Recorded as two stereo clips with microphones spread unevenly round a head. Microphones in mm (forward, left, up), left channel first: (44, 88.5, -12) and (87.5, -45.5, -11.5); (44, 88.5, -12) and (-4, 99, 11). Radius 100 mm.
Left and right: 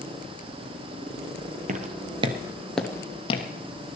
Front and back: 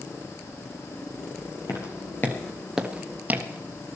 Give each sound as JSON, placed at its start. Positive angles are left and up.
{"t": 1.7, "sound": "footsteps", "azimuth_deg": -65, "distance_m": 1.7}